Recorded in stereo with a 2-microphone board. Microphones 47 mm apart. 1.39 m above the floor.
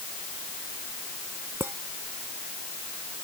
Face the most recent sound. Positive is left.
turn(degrees=-70)  # may be behind; listen again after turning